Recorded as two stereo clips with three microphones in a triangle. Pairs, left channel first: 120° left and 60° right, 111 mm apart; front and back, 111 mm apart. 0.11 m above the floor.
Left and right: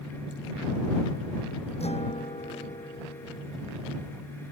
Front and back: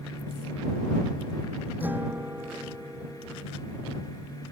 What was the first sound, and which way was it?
A guitar, 105° left.